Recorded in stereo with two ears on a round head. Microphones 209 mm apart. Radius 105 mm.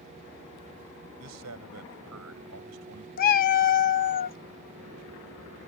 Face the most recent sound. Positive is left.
turn(degrees=40)  # may be behind; listen again after turning